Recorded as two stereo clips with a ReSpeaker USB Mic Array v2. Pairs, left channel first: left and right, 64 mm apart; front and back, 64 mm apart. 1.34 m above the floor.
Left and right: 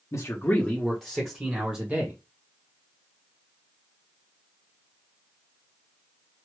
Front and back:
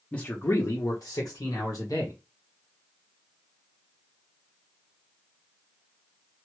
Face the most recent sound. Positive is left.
turn(degrees=-35)